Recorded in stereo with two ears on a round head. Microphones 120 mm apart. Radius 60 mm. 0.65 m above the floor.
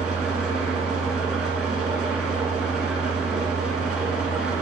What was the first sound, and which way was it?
An engine running, 5° right (ahead or behind).